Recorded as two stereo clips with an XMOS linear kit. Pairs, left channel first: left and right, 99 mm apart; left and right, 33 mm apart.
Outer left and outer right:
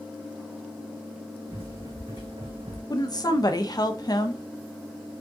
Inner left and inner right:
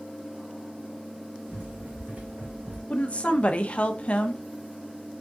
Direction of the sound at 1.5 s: 65° right (ahead or behind).